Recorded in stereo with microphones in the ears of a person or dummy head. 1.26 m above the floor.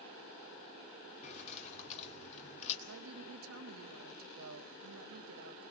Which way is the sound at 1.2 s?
40° left (ahead or behind).